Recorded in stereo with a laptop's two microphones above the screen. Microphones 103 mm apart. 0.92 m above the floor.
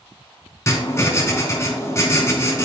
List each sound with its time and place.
0.7 s writing: 30° left (ahead or behind), 3 m